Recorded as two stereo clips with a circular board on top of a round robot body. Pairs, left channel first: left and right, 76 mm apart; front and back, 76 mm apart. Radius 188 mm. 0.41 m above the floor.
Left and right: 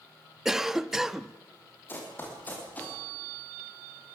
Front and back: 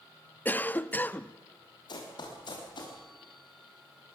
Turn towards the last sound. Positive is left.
turn(degrees=20)